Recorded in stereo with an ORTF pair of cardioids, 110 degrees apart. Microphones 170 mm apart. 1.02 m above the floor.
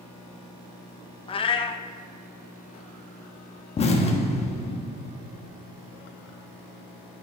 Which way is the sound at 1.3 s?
35° left.